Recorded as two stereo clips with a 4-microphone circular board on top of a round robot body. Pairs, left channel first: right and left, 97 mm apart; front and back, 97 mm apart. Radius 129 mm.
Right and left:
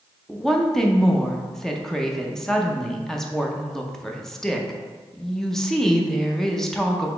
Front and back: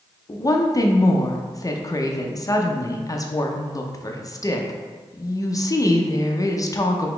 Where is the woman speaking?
10° right, 0.7 m.